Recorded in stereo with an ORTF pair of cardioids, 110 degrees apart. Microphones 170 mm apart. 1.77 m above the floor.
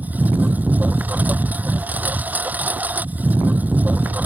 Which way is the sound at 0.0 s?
10° right.